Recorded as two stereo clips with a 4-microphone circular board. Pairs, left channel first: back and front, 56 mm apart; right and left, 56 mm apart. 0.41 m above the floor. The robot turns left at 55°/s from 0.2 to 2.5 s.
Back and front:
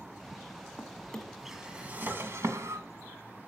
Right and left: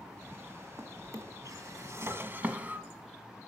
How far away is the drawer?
About 1.5 m.